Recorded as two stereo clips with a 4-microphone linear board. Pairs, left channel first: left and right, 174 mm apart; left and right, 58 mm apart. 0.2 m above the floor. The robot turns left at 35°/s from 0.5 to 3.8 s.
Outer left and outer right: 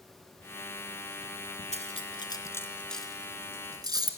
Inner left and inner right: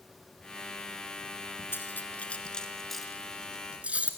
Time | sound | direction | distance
1.7 | cutlery clinking | 40° left (ahead or behind) | 1.5 m